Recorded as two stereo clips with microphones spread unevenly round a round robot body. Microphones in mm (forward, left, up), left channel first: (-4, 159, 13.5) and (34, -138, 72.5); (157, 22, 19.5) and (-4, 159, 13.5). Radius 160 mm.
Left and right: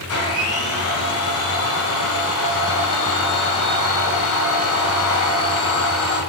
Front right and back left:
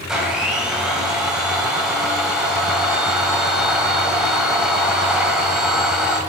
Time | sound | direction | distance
0.1 | a blender | 50° left | 1.9 m